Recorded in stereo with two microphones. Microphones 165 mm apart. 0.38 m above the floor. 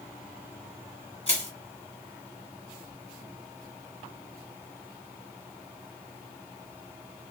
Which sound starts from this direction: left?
Crushing, at 1.3 s.